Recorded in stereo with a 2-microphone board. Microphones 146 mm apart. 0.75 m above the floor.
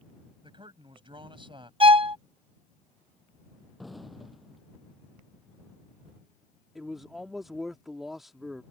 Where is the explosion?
Centre (ahead or behind).